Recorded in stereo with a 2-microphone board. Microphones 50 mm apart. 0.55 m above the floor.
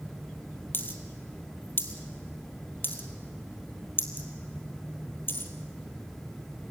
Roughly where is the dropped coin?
Left.